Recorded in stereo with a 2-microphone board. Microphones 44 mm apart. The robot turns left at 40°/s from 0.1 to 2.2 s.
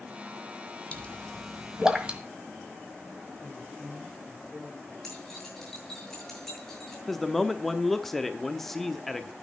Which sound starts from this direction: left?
A pop, at 0.9 s.